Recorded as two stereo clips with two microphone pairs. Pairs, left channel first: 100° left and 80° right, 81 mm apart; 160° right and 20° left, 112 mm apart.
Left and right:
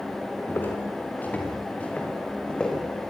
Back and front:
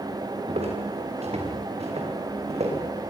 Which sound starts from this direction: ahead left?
Footsteps, at 0.5 s.